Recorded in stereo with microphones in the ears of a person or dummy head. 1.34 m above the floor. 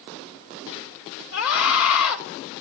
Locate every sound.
1.3 s a scream: 75° left (ahead or behind), 4.5 m